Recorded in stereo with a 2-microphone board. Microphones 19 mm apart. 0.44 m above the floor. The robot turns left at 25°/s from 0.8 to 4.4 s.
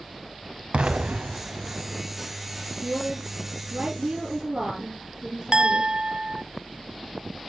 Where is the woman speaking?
95° right, 6 m; by 5.9 s 130° right, 6 m.